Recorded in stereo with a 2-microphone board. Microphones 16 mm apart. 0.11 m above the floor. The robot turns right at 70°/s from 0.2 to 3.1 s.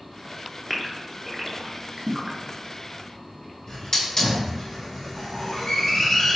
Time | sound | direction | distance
0.7 | a gasp | 10° left (ahead or behind) | 0.9 m
3.7 | a hiss | 40° left (ahead or behind) | 1.8 m